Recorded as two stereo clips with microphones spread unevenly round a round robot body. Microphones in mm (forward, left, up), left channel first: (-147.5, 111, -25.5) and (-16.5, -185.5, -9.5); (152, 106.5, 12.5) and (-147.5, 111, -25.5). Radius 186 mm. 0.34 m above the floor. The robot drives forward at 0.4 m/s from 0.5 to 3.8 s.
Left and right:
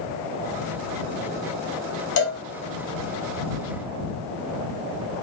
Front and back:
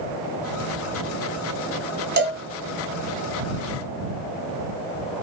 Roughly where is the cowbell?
Behind left.